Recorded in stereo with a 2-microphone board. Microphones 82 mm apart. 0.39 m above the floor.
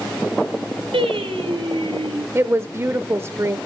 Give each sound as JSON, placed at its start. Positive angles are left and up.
{"t": 0.9, "sound": "singing", "side_deg": -80, "distance_m": 4.5}
{"t": 2.4, "sound": "a woman speaking", "side_deg": -30, "distance_m": 0.9}